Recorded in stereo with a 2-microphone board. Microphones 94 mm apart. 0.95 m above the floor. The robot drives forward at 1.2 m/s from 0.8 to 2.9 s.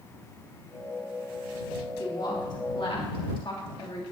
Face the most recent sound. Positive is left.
turn(degrees=65)  # may be behind; listen again after turning